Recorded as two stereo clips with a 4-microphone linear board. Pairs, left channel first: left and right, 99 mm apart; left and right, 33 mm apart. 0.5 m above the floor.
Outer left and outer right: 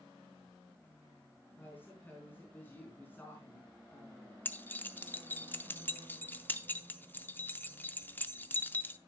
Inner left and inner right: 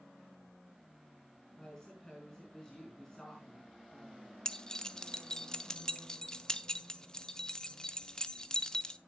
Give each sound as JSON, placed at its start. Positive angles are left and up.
{"t": 1.6, "sound": "a woman speaking", "side_deg": 20, "distance_m": 4.5}
{"t": 4.5, "sound": "keys jangling", "side_deg": 20, "distance_m": 0.6}